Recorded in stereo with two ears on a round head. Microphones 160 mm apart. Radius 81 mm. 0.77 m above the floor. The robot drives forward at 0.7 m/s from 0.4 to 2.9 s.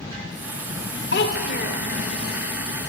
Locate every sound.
1.1 s a child speaking: 65° left (ahead or behind), 1.2 m; by 1.9 s 45° left (ahead or behind), 1.5 m